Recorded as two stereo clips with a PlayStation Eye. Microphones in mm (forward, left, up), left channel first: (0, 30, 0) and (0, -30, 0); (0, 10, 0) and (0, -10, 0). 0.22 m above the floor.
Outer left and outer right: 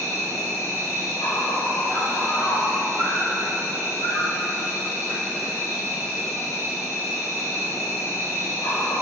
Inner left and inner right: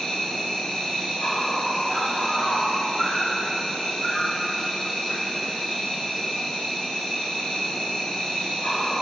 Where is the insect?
45° left (ahead or behind), 1.3 m.